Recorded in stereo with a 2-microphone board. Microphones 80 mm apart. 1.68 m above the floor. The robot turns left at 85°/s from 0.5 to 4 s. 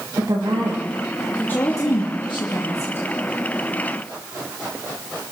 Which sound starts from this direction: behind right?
A woman speaking, at 0.2 s.